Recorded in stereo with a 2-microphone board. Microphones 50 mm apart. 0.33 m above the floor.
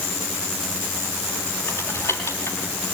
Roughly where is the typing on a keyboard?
Left.